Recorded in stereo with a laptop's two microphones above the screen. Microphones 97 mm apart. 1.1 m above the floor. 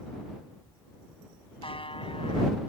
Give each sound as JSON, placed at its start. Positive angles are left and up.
{"t": 1.6, "sound": "a buzzer", "side_deg": 70}